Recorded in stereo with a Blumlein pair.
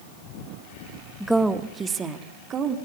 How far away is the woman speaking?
About 1.5 m.